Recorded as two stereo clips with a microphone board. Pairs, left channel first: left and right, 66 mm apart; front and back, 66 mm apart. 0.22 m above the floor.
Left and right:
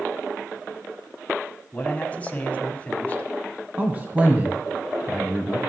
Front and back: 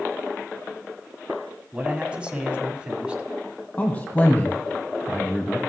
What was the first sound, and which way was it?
A man speaking, 125° left.